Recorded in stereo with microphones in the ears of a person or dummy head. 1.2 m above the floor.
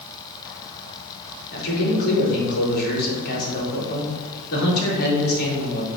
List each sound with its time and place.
1.5 s a man speaking: 55° left (ahead or behind), 4 m